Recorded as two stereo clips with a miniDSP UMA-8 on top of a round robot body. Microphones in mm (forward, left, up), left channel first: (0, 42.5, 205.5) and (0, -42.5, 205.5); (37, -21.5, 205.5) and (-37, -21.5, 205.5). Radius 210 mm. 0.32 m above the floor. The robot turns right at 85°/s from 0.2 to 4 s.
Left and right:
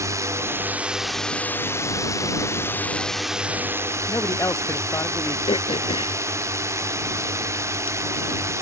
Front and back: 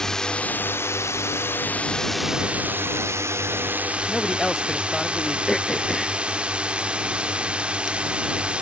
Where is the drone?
80° right; by 8.6 s 115° right.